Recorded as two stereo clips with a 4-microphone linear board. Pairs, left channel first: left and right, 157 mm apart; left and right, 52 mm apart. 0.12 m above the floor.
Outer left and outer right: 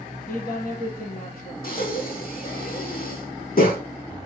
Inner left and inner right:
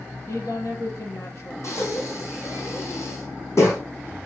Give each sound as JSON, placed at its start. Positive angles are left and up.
{"t": 0.3, "sound": "a woman speaking", "side_deg": 65, "distance_m": 3.5}
{"t": 1.6, "sound": "breathing", "side_deg": 70, "distance_m": 2.5}